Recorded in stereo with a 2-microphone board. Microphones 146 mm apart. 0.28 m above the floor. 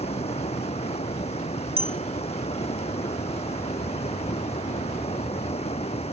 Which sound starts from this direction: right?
A clink, at 1.8 s.